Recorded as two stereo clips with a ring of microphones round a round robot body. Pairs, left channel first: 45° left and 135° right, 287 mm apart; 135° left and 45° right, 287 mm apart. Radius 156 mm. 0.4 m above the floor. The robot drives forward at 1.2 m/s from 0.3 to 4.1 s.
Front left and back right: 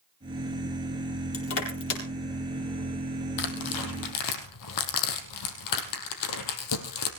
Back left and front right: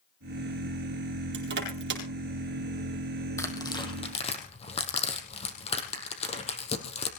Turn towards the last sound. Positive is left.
turn(degrees=65)